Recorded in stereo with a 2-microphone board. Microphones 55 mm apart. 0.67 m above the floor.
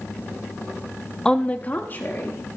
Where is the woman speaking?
10° left (ahead or behind), 0.6 m; by 2.4 s 40° left (ahead or behind), 1.7 m.